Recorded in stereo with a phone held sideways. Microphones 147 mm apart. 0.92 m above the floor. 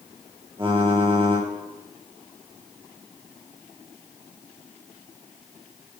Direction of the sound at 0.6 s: 35° right (ahead or behind).